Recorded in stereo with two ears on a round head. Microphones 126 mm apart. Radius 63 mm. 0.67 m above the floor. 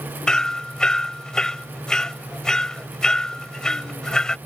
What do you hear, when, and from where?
0.3 s hammering: 5° left (ahead or behind)